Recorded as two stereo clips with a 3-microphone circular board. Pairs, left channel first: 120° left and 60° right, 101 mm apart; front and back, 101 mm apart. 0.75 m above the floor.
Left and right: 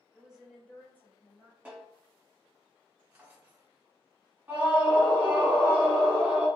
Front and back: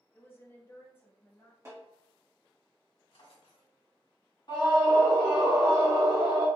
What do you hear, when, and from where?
0.1 s a woman speaking: 15° right, 0.5 m; by 1.6 s 70° left, 0.9 m
1.6 s a snare drum: 130° right, 1.3 m
3.1 s a drawer: 10° left, 1.3 m
4.5 s a scream: 5° left, 1.2 m